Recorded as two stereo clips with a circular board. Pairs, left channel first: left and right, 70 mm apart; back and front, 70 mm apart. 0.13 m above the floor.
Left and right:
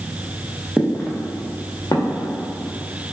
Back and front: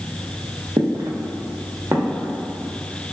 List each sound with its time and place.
0.8 s footsteps: 5° left, 0.7 m; by 2.3 s 65° left, 0.9 m